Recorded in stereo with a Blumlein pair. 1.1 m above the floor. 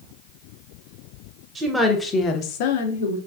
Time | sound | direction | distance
1.6 | a woman speaking | 20° right | 0.6 m